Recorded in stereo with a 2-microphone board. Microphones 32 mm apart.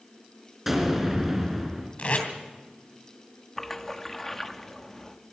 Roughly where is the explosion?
Centre.